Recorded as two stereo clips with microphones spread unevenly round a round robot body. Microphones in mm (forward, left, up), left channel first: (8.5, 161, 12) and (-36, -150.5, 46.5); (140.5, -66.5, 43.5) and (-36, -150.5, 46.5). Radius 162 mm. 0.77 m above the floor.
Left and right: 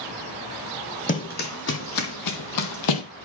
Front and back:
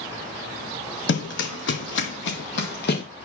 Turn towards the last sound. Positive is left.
turn(degrees=75)